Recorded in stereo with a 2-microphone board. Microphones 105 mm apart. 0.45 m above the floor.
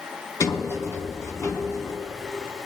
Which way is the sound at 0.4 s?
30° left (ahead or behind).